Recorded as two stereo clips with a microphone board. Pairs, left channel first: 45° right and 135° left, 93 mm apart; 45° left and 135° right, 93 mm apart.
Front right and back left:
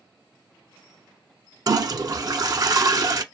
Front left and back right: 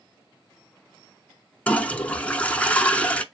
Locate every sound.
1.7 s a toilet flushing: 115° left, 0.5 m